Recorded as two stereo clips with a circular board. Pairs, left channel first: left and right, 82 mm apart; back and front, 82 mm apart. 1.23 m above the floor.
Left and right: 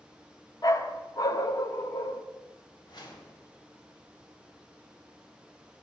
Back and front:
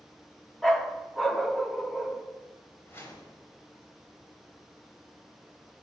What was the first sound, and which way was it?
A dog barking, 90° left.